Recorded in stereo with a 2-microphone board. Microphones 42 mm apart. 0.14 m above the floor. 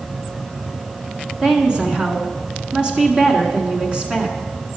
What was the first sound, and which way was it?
A woman speaking, 25° right (ahead or behind).